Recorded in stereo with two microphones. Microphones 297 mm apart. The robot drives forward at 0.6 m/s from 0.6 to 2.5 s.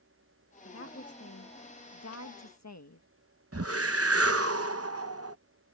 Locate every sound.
0.7 s a woman speaking: 45° left (ahead or behind); by 3.1 s 65° left (ahead or behind)
3.5 s a whoosh: 50° right (ahead or behind)